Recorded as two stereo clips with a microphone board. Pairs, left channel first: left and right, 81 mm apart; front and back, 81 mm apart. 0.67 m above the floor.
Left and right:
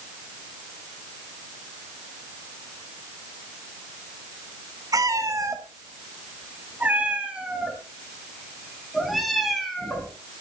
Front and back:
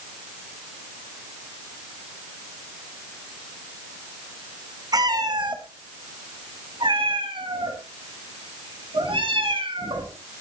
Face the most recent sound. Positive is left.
turn(degrees=175)